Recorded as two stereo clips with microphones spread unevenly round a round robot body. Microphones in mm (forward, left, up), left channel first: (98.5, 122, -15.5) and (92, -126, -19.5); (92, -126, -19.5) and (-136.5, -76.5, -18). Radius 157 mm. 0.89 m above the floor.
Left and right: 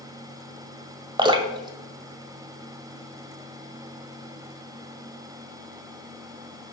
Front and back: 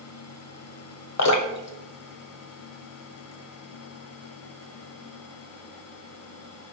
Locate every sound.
1.2 s dripping: 20° right, 1.3 m